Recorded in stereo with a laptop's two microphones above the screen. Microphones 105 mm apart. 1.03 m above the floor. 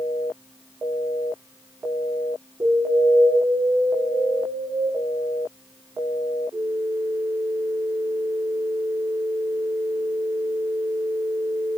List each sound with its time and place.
2.6 s an alarm: 30° right (ahead or behind), 10 m